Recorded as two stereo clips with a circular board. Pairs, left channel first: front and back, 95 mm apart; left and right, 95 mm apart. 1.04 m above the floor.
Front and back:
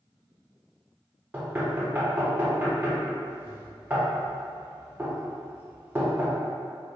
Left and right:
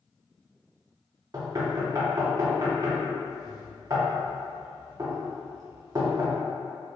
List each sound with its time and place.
1.3 s knocking: 120° right, 0.6 m